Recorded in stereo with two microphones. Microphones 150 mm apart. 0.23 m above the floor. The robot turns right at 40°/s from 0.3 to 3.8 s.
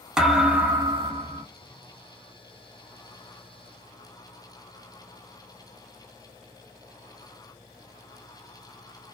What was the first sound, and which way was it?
A thud, 175° right.